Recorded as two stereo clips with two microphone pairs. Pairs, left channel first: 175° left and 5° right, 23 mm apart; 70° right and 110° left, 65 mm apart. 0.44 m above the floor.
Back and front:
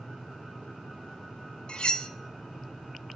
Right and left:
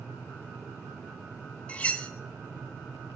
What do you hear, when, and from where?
1.7 s cutlery clinking: 145° right, 0.7 m